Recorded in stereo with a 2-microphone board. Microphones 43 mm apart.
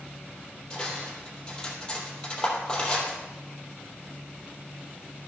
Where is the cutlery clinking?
20° left (ahead or behind), 3 m.